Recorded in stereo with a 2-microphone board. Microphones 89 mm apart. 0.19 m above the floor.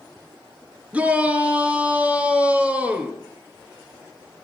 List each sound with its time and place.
0.9 s a shout: 15° right (ahead or behind), 2.5 m